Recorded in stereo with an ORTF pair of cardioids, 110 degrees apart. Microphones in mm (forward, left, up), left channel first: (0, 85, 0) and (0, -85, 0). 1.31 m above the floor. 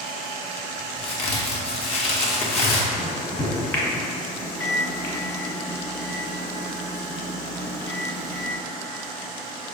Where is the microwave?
15° left, 1.1 m.